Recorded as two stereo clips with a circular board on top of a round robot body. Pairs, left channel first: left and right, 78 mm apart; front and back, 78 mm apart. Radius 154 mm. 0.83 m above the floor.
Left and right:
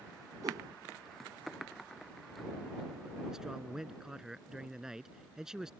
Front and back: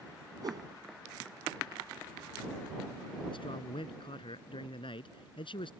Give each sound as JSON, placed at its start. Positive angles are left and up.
{"t": 0.4, "sound": "a whoosh", "azimuth_deg": -140}
{"t": 3.3, "sound": "a man speaking", "azimuth_deg": -5}